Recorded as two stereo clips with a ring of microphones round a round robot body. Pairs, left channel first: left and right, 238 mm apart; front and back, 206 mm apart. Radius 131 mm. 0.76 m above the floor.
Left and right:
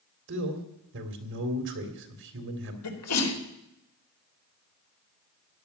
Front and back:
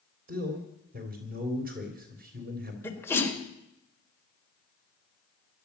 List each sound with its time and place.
0.3 s a man speaking: 130° right, 3.5 m
2.8 s a sneeze: 80° left, 4 m